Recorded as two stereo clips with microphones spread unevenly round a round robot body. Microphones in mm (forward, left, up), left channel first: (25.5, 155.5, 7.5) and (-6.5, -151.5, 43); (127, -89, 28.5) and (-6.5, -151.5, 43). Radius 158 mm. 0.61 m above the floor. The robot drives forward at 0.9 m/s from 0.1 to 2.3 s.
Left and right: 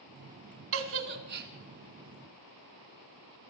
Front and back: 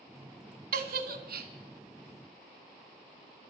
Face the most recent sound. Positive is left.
turn(degrees=-160)